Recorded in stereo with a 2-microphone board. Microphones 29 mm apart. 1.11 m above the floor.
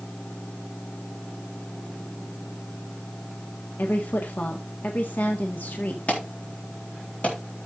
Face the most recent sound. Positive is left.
turn(degrees=50)  # may be behind; listen again after turning